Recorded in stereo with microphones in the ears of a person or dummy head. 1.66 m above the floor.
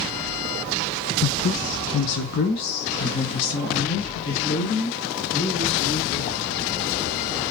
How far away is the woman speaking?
About 0.6 m.